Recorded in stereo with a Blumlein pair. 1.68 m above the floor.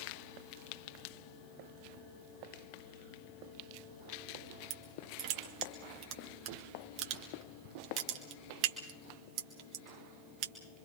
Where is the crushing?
40° right, 2 m.